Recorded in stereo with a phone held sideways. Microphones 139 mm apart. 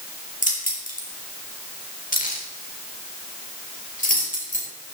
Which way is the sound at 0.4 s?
70° left (ahead or behind).